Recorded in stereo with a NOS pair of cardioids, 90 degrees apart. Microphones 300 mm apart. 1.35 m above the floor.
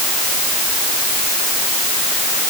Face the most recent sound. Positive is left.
No sound to turn to.